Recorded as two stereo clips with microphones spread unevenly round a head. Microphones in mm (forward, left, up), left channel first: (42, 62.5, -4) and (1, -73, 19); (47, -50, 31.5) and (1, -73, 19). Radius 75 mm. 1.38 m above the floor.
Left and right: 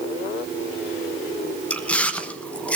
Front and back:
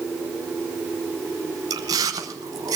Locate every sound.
1.7 s chewing: 160° left, 0.9 m